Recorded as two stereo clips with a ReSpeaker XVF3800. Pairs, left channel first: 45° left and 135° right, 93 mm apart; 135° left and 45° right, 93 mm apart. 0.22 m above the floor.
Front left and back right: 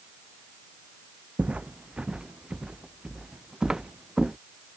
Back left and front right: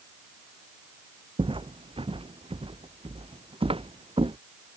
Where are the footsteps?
60° right; by 4.4 s 50° right.